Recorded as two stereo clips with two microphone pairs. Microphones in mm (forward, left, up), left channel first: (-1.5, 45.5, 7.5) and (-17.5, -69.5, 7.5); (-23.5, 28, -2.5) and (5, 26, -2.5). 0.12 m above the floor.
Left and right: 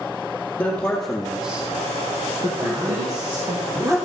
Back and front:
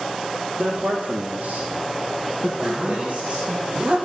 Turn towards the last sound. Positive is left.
turn(degrees=-45)